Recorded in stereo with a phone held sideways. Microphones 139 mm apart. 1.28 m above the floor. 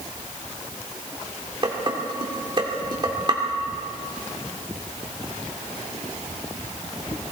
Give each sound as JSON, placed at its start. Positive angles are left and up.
{"t": 1.6, "sound": "dishes clattering", "side_deg": -35, "distance_m": 2.5}